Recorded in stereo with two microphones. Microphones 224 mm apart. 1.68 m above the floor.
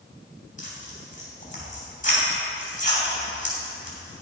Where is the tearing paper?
35° left (ahead or behind), 3 m.